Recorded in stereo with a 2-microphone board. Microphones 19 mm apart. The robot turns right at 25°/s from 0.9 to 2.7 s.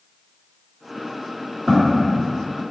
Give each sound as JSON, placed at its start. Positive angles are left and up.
{"t": 1.7, "sound": "footsteps", "side_deg": -10, "distance_m": 1.9}